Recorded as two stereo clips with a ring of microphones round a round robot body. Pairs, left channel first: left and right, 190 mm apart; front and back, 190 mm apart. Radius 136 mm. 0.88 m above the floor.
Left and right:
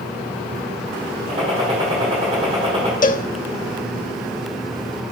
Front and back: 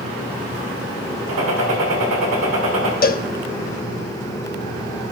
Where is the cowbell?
40° left, 0.9 m.